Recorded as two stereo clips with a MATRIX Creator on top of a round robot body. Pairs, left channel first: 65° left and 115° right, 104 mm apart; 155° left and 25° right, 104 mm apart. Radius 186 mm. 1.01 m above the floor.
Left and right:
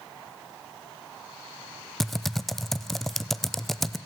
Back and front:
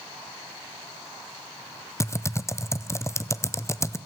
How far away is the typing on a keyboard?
About 0.8 m.